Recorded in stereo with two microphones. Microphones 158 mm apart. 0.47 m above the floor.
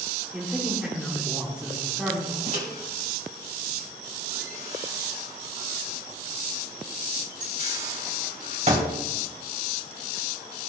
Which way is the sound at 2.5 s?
45° right (ahead or behind).